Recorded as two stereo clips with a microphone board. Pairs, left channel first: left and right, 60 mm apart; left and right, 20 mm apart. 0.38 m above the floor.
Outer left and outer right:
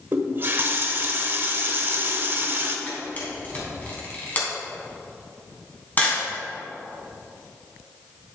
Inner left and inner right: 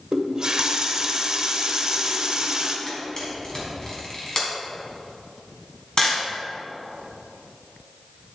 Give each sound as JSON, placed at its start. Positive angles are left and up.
{"t": 0.1, "sound": "a running tap", "side_deg": -40, "distance_m": 1.0}
{"t": 2.9, "sound": "a camera shutter", "side_deg": 35, "distance_m": 3.0}